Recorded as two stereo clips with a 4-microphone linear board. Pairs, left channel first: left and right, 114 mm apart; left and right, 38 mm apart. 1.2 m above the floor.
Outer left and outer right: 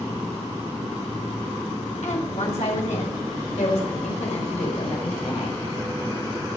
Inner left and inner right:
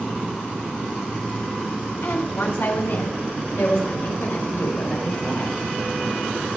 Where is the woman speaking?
80° left, 4.5 m; by 5.6 s 75° left (ahead or behind), 6 m.